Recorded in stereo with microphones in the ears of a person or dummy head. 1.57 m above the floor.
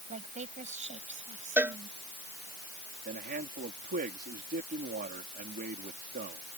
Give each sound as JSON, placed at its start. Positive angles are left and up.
{"t": 0.1, "sound": "a woman speaking", "side_deg": -35}
{"t": 1.6, "sound": "a cowbell", "side_deg": -5}
{"t": 3.0, "sound": "a man speaking", "side_deg": -50}